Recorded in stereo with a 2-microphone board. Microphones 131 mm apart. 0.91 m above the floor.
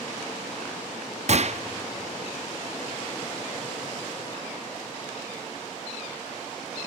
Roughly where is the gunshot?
Right.